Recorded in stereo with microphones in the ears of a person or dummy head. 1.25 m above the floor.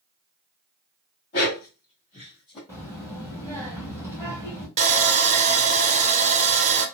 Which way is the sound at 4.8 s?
35° right (ahead or behind).